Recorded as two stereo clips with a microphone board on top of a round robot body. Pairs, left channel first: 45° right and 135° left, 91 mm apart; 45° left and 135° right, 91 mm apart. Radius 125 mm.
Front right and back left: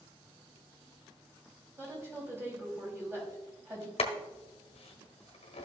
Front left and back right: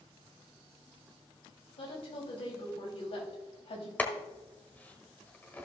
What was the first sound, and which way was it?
A woman speaking, 70° left.